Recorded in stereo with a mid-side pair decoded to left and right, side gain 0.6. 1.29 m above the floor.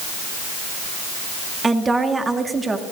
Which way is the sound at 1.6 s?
20° right.